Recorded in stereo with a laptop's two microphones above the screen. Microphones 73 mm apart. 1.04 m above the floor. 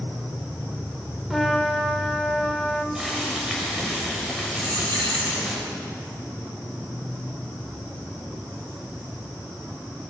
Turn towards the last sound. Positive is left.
turn(degrees=-75)  # may be behind; listen again after turning